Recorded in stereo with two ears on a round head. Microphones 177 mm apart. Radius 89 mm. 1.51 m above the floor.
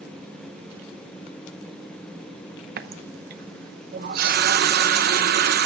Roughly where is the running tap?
Right.